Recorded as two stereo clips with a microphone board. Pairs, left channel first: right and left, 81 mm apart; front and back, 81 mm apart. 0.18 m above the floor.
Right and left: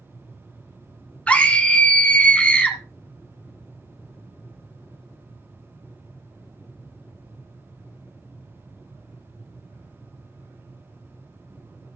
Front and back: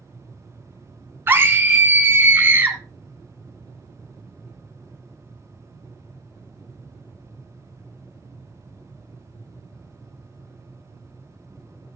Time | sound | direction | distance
1.3 | a scream | 150° right | 1.9 m